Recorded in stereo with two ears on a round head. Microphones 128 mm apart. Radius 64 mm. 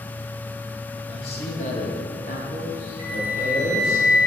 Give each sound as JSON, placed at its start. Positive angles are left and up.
{"t": 1.1, "sound": "a man speaking", "side_deg": 35, "distance_m": 1.2}
{"t": 3.0, "sound": "a flute", "side_deg": 55, "distance_m": 2.5}